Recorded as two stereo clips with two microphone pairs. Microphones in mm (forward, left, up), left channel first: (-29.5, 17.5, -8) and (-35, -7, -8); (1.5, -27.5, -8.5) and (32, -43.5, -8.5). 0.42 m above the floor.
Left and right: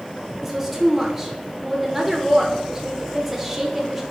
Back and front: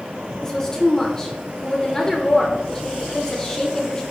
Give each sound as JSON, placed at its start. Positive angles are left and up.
{"t": 0.4, "sound": "a woman speaking", "azimuth_deg": -160, "distance_m": 0.8}